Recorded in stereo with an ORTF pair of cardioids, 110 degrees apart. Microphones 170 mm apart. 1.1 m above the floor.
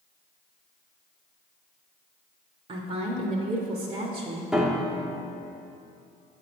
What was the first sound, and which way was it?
A woman speaking, 40° right.